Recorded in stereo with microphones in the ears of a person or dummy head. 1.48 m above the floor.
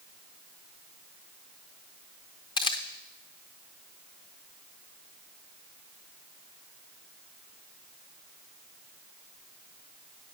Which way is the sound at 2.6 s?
35° left (ahead or behind).